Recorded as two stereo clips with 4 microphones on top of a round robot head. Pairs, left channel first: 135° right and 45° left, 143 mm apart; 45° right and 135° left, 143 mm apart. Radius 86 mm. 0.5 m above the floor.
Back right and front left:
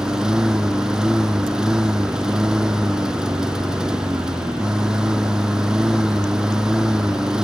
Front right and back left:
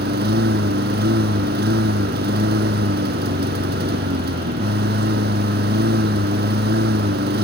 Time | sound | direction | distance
0.0 | a lawn mower | 130° left | ?